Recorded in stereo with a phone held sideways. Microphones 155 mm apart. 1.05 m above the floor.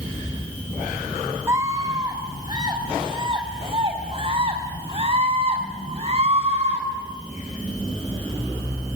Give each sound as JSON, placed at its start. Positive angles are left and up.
{"t": 1.5, "sound": "a scream", "side_deg": -20, "distance_m": 4.0}